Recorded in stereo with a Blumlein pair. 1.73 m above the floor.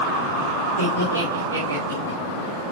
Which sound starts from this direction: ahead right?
Laughter, at 0.8 s.